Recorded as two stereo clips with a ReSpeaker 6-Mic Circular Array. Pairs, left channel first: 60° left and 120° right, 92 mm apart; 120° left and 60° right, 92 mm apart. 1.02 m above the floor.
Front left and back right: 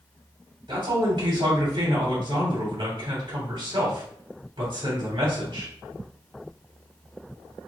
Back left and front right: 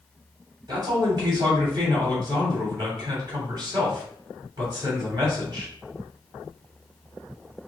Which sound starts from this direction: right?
A man speaking, at 0.7 s.